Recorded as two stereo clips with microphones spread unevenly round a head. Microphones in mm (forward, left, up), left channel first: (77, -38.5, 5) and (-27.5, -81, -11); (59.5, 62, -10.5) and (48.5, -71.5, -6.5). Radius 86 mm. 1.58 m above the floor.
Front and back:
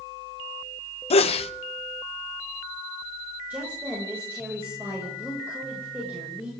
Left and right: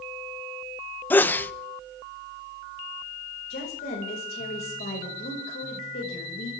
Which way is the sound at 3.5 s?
120° left.